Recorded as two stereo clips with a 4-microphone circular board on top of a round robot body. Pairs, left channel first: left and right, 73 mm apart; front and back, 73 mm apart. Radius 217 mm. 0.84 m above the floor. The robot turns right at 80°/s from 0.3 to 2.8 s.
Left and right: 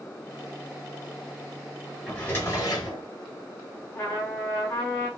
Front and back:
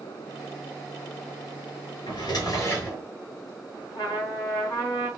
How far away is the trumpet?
About 2.5 m.